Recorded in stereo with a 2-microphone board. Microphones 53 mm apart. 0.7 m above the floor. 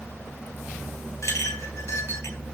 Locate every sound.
1.2 s a clink: 60° left (ahead or behind), 3.5 m